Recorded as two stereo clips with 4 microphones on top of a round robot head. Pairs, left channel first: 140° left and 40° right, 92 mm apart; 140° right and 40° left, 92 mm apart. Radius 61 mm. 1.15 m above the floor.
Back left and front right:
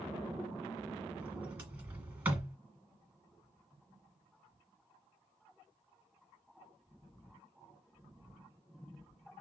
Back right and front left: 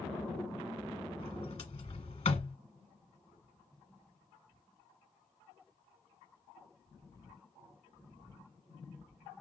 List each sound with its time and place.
1.2 s a sliding door: 110° right, 1.4 m